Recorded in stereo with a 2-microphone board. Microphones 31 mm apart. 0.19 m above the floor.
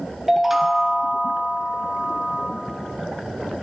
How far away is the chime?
About 0.8 m.